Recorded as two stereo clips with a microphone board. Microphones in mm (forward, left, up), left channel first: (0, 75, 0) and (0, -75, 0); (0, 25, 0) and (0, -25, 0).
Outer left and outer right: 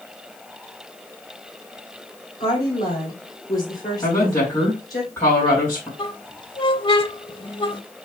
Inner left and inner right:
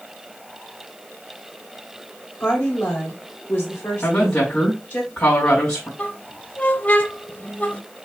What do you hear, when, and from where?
2.4 s a woman speaking: 25° left (ahead or behind), 3 m
4.0 s a woman speaking: 15° left (ahead or behind), 3 m
6.0 s a squeak: 30° left (ahead or behind), 0.6 m